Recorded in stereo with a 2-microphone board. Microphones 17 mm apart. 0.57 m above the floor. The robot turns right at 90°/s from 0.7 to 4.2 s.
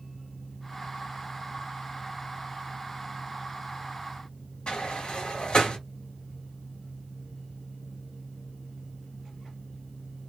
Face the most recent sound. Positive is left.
turn(degrees=75)  # may be behind; listen again after turning